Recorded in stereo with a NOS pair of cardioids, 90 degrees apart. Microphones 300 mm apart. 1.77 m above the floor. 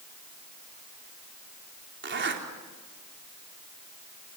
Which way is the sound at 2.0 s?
40° right.